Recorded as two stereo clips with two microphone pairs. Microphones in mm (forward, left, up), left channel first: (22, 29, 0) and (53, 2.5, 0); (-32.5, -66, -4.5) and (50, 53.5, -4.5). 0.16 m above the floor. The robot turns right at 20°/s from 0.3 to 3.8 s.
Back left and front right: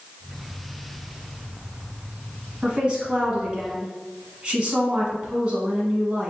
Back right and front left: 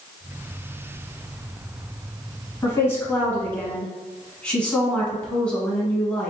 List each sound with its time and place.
2.6 s a woman speaking: 75° right, 1.1 m; by 6.3 s 50° right, 1.1 m